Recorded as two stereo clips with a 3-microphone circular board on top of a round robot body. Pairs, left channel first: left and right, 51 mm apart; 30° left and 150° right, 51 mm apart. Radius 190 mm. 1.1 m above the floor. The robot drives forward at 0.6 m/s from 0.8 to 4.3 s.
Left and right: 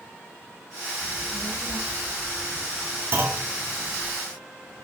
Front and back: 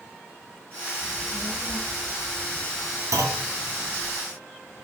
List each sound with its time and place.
1.0 s a child speaking: 145° left, 4 m; by 4.1 s 155° left, 5.5 m
3.1 s a clunk: 135° right, 3 m; by 3.5 s 140° right, 3 m